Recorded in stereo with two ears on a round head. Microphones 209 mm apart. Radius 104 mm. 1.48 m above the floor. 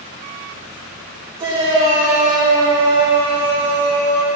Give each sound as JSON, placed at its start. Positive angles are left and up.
{"t": 1.4, "sound": "a shout", "side_deg": -20, "distance_m": 3.0}